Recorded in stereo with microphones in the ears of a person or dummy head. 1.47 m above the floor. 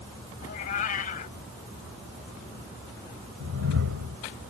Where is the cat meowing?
45° left (ahead or behind).